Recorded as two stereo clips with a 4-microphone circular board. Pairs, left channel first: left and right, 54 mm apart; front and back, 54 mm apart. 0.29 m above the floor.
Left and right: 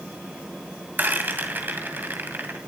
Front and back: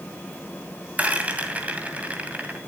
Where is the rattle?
125° right, 2 m.